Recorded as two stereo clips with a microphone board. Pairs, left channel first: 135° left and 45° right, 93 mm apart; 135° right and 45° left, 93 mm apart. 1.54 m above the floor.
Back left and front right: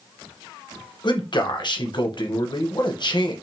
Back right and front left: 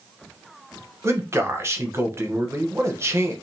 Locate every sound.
1.0 s a man speaking: 105° left, 1.0 m